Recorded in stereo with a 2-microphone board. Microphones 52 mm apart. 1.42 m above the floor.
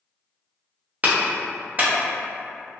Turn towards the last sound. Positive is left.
turn(degrees=-35)  # may be behind; listen again after turning